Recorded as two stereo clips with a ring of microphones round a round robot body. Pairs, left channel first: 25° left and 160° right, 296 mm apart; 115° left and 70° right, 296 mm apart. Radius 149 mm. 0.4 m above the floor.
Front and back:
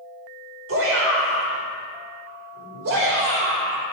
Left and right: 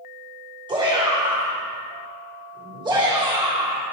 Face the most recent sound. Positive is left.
turn(degrees=-135)